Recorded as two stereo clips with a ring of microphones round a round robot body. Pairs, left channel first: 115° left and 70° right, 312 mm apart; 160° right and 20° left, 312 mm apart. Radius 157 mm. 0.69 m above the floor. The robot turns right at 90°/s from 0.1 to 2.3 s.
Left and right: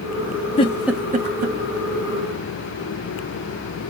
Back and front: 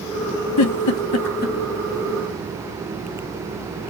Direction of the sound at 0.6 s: Straight behind.